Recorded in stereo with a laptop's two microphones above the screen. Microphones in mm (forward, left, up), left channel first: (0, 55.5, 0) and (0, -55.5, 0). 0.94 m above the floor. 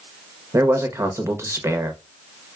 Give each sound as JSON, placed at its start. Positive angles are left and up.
{"t": 0.5, "sound": "a man speaking", "side_deg": -25, "distance_m": 0.8}